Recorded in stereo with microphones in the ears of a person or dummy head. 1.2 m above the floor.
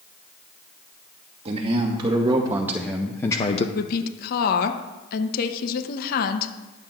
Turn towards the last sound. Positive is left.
turn(degrees=50)  # may be behind; listen again after turning